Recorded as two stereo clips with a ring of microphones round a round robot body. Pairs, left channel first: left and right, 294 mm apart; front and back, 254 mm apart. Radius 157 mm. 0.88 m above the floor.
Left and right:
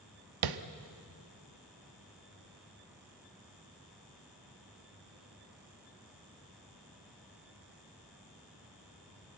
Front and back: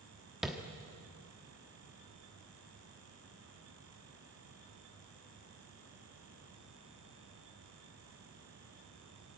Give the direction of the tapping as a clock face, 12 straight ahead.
3 o'clock.